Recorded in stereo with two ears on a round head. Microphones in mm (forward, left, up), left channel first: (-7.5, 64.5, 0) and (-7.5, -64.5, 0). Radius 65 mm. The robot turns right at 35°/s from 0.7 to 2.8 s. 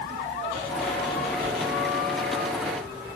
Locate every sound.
1.4 s writing: 85° right, 7.5 m